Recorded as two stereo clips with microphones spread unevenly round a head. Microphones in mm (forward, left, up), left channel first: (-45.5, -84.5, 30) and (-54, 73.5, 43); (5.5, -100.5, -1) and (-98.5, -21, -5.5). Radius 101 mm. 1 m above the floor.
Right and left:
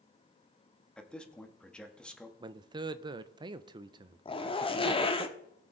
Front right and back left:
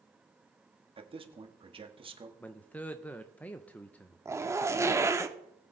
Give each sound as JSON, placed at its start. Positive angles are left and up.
{"t": 1.0, "sound": "a man speaking", "azimuth_deg": -170, "distance_m": 2.0}
{"t": 2.4, "sound": "a man speaking", "azimuth_deg": 40, "distance_m": 0.5}
{"t": 4.2, "sound": "a zipper", "azimuth_deg": -145, "distance_m": 1.1}